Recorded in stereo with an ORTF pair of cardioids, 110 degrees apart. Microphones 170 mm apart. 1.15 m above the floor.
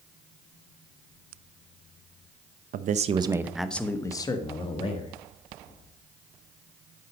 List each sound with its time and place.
2.7 s a man speaking: 55° right, 0.8 m; by 5.2 s 35° left, 1.9 m